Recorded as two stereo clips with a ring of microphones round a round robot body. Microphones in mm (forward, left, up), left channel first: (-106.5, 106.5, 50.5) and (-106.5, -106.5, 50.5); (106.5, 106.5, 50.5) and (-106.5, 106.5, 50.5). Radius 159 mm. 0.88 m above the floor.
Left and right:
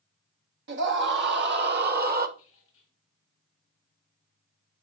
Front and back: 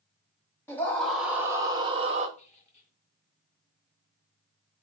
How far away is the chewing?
I don't hear chewing.